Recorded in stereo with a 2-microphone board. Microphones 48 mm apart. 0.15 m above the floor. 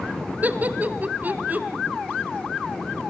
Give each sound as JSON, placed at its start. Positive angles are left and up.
{"t": 0.4, "sound": "laughter", "side_deg": -35, "distance_m": 1.3}